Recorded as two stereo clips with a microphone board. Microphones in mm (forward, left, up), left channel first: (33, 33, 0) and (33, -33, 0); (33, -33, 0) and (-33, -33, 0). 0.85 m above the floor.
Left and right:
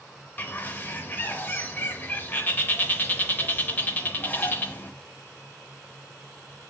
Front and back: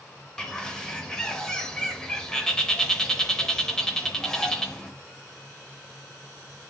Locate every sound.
0.4 s a bird: 65° left, 0.6 m